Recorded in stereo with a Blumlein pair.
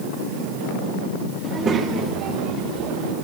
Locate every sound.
1.4 s a child speaking: 20° right, 1.6 m; by 3.1 s 40° right, 2.5 m